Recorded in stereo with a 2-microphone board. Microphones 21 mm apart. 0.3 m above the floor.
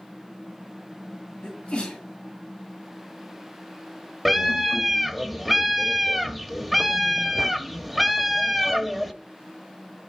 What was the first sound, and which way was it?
A sneeze, 50° left (ahead or behind).